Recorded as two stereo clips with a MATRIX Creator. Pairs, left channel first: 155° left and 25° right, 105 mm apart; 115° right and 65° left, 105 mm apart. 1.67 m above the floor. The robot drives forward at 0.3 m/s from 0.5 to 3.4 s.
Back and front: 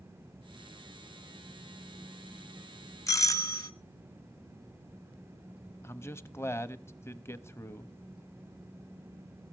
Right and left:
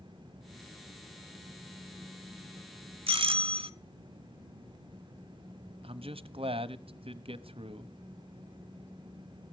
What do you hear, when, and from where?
3.1 s a doorbell: 100° left, 1.0 m; by 3.7 s 105° left, 1.0 m
5.8 s a man speaking: 95° left, 0.8 m